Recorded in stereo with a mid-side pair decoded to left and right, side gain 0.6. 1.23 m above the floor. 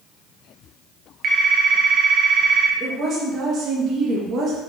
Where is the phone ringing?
50° right, 0.9 m.